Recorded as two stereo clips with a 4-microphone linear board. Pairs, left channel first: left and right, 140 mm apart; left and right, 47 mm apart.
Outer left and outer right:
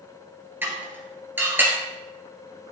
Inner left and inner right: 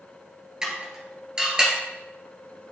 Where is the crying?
No crying in this recording.